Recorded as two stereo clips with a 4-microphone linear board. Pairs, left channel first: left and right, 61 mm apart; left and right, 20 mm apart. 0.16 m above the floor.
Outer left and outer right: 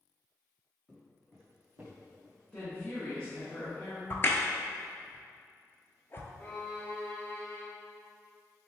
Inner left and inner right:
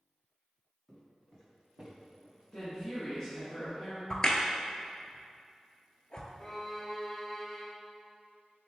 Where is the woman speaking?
15° left (ahead or behind), 1.4 m.